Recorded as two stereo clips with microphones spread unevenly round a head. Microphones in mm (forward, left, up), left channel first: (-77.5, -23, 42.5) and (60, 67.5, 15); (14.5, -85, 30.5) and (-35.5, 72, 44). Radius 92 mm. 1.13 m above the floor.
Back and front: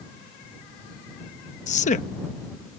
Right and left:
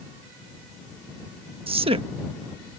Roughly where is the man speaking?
Behind.